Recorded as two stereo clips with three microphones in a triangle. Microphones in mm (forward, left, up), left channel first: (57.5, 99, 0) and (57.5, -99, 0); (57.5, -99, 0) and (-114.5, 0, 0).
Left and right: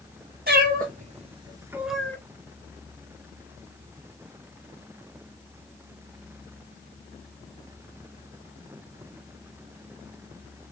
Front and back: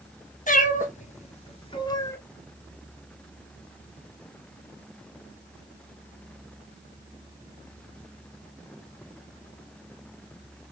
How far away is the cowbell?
I don't hear a cowbell.